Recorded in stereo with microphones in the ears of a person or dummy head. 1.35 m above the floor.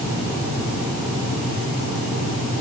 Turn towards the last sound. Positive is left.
No sound to turn to.